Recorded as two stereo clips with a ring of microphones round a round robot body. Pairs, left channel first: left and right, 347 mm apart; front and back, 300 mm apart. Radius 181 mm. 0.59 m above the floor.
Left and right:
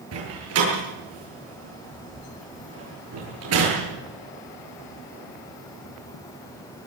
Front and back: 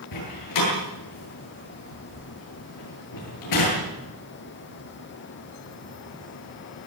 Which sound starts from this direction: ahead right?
A door slam, at 0.1 s.